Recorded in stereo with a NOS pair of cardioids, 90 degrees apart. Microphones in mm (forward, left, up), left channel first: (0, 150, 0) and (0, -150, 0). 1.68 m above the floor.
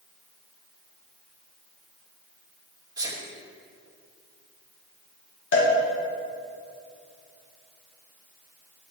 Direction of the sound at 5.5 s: 40° left.